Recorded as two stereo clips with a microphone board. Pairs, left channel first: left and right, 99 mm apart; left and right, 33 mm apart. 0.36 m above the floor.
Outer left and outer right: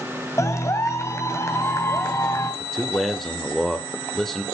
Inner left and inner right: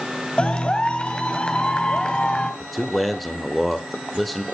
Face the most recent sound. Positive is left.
turn(degrees=5)  # may be behind; listen again after turning